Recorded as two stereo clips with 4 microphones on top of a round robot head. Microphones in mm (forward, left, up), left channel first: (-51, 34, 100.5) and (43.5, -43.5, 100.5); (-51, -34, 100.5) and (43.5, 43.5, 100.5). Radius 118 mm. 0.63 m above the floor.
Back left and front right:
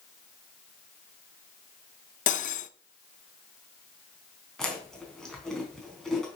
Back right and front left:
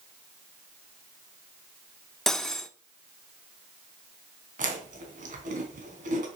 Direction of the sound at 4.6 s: 55° left.